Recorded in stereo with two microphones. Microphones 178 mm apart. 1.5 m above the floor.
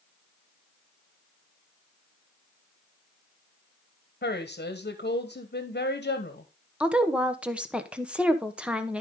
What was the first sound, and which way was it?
A woman speaking, 65° left (ahead or behind).